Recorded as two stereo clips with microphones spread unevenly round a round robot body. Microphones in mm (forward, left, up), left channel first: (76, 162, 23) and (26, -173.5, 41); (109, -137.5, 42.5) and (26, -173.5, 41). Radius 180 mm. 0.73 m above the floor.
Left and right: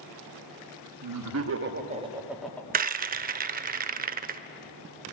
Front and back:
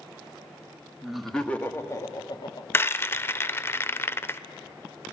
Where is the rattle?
40° right, 0.6 m.